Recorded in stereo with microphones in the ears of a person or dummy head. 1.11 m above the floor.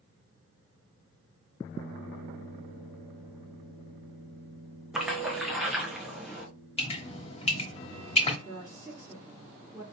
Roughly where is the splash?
Centre.